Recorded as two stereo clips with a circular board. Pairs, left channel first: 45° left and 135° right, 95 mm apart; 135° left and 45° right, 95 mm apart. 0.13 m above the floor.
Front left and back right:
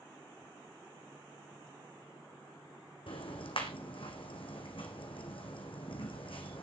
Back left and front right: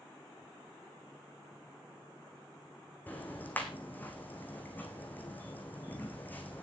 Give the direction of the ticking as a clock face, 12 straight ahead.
10 o'clock.